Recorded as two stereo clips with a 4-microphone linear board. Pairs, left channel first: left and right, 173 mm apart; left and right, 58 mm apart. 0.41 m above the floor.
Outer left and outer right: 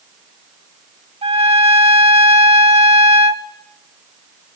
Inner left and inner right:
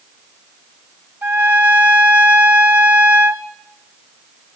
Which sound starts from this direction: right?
A trumpet, at 1.2 s.